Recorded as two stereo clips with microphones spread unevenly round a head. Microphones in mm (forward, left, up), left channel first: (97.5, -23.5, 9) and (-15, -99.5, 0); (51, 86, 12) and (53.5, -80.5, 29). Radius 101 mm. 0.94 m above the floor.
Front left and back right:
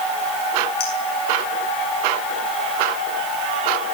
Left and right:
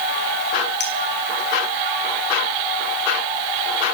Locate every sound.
0.8 s a clink: 75° left, 8 m